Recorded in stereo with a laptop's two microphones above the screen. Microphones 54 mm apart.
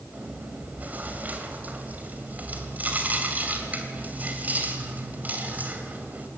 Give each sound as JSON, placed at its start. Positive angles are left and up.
{"t": 0.1, "sound": "chewing", "side_deg": -30, "distance_m": 2.5}